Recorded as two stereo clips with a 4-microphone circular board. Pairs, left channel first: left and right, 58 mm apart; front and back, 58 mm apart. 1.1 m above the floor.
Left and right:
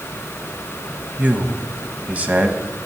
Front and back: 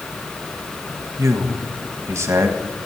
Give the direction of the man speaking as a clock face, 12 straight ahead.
5 o'clock.